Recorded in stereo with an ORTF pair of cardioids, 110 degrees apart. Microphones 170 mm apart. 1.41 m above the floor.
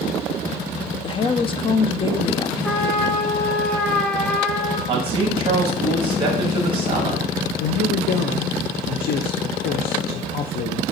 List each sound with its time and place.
1.0 s a woman speaking: 30° left, 0.5 m
2.6 s a trumpet: 5° left, 1.2 m
4.9 s a man speaking: 30° right, 1.5 m
7.6 s a man speaking: 65° left, 0.5 m